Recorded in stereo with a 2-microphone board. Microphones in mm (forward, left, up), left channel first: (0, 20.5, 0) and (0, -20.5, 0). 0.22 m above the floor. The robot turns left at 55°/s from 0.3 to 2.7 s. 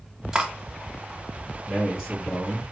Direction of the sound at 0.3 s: 15° right (ahead or behind).